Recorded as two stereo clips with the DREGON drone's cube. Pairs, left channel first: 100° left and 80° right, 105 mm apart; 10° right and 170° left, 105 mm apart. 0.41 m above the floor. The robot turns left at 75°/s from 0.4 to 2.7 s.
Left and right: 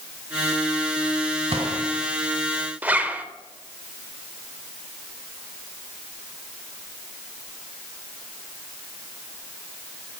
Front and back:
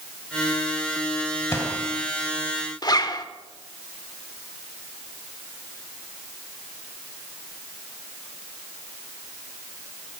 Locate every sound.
1.5 s a gunshot: 70° right, 1.7 m; by 1.8 s 95° right, 1.7 m
2.8 s a zipper: 15° right, 0.7 m